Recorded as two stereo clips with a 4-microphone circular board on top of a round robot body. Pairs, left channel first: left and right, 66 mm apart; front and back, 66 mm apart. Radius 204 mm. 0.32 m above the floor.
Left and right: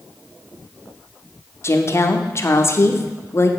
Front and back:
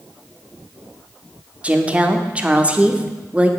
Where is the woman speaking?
115° left, 1.3 m.